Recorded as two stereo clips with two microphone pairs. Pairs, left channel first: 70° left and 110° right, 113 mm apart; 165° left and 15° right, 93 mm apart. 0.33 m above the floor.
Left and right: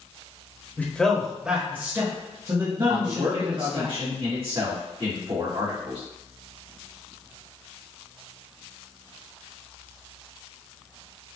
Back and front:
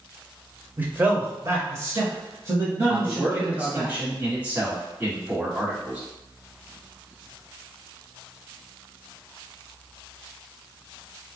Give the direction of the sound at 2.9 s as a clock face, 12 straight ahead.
3 o'clock.